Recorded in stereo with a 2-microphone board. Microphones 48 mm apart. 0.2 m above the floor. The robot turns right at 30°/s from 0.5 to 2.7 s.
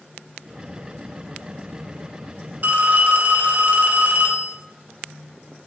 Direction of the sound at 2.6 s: 40° right (ahead or behind).